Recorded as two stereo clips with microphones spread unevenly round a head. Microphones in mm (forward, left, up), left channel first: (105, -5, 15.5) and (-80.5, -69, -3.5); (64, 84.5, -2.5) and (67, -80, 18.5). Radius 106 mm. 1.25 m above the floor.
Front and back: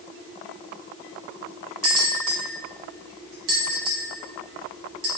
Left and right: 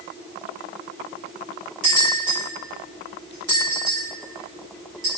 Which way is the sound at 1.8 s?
145° right.